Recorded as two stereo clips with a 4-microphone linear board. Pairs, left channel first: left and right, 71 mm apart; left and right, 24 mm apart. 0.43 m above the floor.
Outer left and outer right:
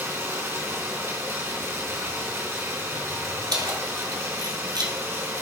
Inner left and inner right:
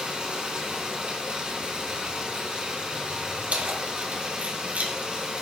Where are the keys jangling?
75° right (ahead or behind), 1.8 m.